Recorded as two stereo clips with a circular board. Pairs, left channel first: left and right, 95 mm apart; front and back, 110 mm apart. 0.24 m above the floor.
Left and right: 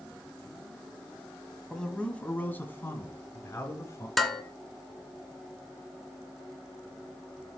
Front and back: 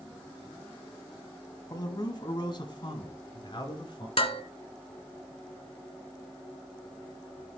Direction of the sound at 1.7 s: 10° left.